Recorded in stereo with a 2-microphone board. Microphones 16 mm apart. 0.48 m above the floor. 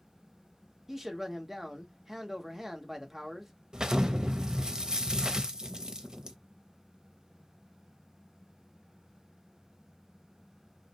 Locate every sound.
0.9 s a man speaking: 20° right (ahead or behind), 0.8 m
3.7 s an explosion: 50° right (ahead or behind), 0.6 m